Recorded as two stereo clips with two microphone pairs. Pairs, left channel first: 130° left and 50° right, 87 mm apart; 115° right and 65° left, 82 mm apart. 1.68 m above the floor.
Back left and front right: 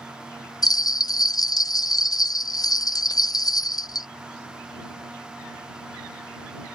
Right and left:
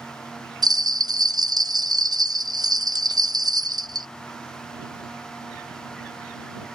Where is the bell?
90° left.